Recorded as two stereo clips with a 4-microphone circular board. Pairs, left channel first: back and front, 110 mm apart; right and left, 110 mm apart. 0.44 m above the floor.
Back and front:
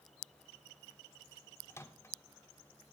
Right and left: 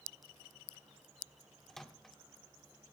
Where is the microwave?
175° right, 0.6 m.